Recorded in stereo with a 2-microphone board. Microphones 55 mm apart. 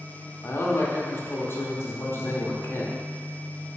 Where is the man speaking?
45° left (ahead or behind), 0.7 m.